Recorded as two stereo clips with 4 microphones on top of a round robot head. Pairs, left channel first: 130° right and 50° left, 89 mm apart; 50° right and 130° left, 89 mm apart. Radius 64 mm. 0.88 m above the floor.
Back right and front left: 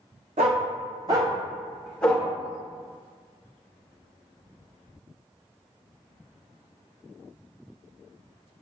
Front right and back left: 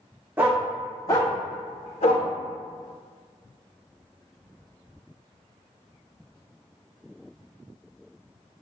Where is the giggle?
I don't hear a giggle.